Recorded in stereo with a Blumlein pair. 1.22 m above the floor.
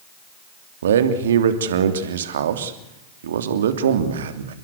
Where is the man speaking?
60° right, 3 m.